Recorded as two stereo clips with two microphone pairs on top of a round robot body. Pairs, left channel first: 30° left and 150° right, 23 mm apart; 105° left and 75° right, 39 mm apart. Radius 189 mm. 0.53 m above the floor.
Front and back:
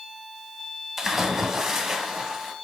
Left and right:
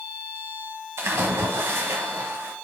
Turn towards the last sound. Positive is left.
turn(degrees=-70)